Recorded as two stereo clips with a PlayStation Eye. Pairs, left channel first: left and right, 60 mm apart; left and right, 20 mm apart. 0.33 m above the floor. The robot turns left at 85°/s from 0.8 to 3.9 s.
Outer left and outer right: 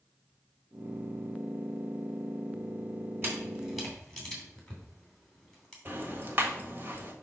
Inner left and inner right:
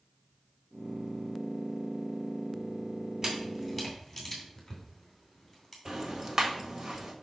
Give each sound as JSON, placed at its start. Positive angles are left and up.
{"t": 3.2, "sound": "a camera shutter", "side_deg": -40, "distance_m": 2.5}
{"t": 5.8, "sound": "ticking", "side_deg": -35, "distance_m": 1.5}